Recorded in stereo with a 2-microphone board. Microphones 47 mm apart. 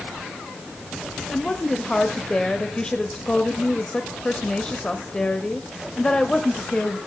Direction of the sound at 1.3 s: 20° left (ahead or behind).